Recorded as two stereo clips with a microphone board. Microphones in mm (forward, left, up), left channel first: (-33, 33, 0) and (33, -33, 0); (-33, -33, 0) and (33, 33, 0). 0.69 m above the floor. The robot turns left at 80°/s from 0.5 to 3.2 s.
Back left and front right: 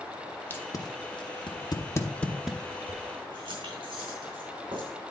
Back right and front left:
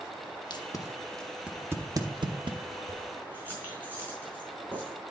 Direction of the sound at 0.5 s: 160° right.